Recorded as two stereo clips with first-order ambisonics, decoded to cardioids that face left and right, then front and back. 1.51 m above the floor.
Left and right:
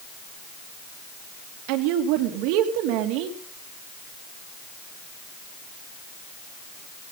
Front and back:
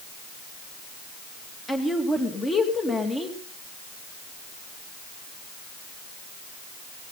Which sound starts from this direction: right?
A woman speaking, at 1.7 s.